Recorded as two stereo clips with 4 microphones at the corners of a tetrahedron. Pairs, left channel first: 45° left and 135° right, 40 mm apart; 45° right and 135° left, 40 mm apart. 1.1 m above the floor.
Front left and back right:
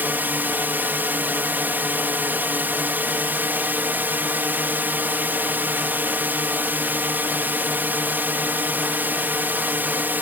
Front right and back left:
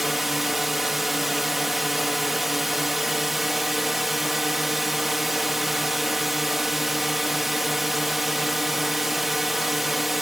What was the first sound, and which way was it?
A drone, 145° right.